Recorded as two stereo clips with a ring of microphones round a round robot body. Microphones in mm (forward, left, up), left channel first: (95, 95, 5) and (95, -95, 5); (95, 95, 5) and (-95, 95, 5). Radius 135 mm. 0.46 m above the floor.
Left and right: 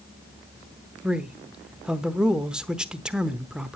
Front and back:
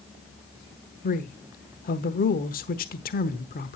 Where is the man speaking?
5° right, 1.0 m.